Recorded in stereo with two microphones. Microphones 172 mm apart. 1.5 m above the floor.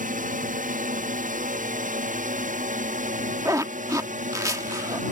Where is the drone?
50° right (ahead or behind).